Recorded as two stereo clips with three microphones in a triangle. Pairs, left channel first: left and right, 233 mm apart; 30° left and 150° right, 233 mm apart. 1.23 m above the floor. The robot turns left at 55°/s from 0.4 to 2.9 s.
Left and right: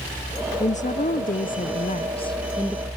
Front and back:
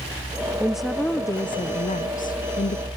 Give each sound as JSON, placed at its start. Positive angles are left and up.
{"t": 0.6, "sound": "a woman speaking", "azimuth_deg": 130, "distance_m": 0.6}